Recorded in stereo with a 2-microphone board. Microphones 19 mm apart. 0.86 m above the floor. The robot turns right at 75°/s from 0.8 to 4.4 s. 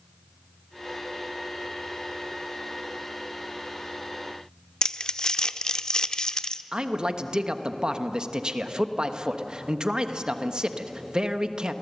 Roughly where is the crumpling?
Left.